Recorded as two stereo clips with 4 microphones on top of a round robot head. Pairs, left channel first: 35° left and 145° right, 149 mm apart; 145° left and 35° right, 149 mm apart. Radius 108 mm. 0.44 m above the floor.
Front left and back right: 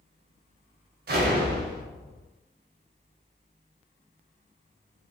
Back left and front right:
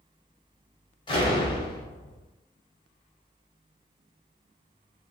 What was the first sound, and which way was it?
An explosion, 155° right.